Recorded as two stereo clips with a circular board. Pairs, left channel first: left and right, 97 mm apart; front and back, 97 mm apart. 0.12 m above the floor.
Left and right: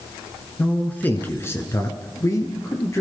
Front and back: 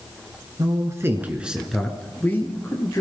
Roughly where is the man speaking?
Behind.